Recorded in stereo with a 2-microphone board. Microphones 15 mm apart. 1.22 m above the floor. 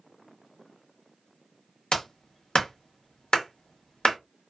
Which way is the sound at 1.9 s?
65° left (ahead or behind).